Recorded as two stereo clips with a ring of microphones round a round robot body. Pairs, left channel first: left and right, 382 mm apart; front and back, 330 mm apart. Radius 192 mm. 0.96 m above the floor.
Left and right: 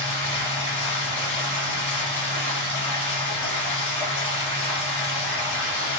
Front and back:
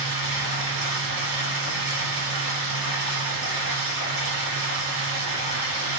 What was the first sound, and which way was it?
Running water, 165° left.